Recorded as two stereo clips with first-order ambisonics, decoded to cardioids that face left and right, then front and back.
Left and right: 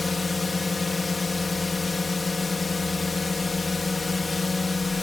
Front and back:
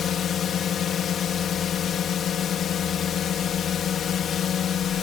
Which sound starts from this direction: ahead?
A drone, at 0.0 s.